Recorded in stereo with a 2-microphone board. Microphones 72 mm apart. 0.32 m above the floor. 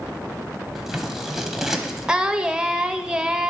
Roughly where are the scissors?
Centre.